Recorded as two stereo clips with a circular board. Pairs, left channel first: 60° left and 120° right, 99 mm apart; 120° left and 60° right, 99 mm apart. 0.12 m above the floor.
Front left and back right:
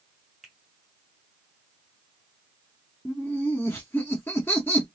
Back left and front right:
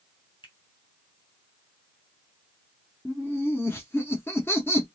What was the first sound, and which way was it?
A finger snap, 150° left.